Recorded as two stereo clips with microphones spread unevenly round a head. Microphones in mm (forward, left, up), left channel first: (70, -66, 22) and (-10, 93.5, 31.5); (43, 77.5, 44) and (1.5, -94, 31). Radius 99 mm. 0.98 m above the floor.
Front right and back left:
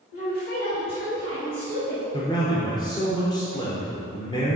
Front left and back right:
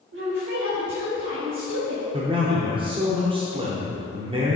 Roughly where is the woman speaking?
Right.